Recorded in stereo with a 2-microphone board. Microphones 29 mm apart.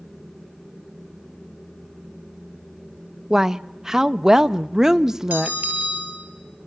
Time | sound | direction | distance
3.3 | a woman speaking | 15° right (ahead or behind) | 0.5 m
5.3 | a bell | 60° right (ahead or behind) | 6.5 m